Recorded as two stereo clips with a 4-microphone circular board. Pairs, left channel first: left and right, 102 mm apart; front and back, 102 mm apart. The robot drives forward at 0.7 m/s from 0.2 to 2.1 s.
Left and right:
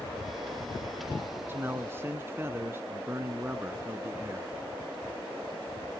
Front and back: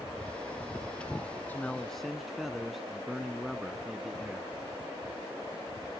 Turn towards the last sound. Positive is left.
turn(degrees=-95)